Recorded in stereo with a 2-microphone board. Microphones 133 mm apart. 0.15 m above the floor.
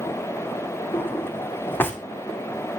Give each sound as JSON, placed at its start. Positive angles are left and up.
{"t": 0.9, "sound": "a drawer", "side_deg": 15, "distance_m": 2.0}